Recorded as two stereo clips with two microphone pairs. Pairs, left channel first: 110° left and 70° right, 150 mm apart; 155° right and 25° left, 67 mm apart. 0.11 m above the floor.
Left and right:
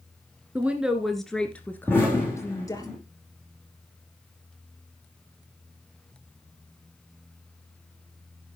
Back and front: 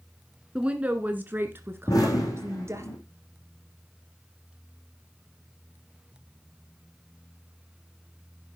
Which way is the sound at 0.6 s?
20° right.